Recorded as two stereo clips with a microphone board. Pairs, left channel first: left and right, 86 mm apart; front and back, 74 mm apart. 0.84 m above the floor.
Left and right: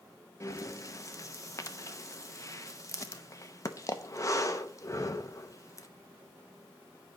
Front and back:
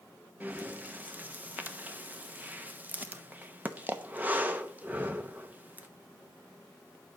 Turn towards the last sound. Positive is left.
turn(degrees=125)